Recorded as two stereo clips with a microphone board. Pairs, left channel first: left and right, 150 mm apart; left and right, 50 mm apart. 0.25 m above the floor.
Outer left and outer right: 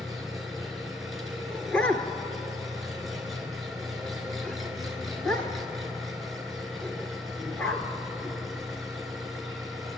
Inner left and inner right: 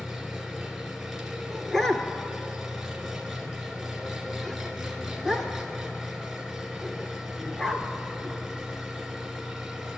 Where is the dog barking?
10° left (ahead or behind), 1.7 m.